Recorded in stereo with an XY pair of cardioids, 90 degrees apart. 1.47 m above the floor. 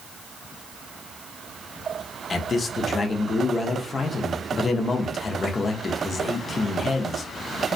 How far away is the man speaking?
About 0.6 m.